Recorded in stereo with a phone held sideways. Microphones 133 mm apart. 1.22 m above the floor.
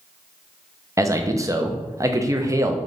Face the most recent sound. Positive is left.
turn(degrees=-25)  # may be behind; listen again after turning